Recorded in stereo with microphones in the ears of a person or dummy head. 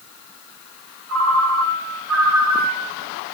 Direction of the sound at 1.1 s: 80° right.